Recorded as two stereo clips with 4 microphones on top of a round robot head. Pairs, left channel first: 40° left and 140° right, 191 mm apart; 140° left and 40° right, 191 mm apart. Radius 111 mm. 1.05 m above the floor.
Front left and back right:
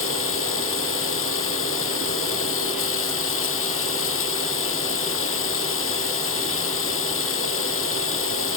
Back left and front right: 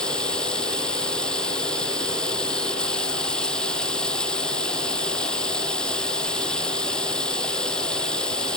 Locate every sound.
0.0 s running water: 55° left